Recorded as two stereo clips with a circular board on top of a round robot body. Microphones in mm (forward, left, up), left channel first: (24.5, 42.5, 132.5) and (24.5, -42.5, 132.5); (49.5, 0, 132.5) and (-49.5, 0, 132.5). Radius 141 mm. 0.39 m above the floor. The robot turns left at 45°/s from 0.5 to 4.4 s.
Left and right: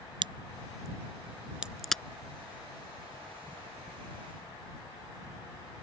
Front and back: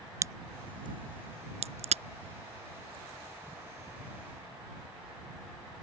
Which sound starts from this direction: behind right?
A crack, at 0.2 s.